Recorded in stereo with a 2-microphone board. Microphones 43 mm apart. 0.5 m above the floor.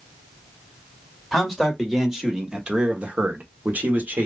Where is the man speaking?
Centre (ahead or behind), 1.7 m; by 4.3 s 40° right (ahead or behind), 1.3 m.